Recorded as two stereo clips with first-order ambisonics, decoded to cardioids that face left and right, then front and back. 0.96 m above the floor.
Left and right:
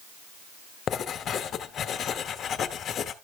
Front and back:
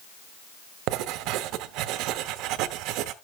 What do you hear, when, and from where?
0.9 s writing: 150° left, 0.9 m